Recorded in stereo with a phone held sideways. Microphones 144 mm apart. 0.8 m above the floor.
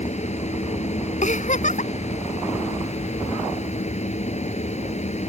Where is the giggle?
60° left (ahead or behind).